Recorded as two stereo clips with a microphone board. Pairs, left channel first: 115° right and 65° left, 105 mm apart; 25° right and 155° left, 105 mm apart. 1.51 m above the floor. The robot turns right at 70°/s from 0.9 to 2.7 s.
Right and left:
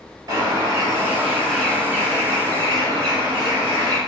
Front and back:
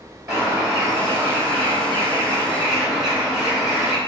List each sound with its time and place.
0.3 s a bird: 120° left, 1.7 m; by 4.0 s 115° right, 1.7 m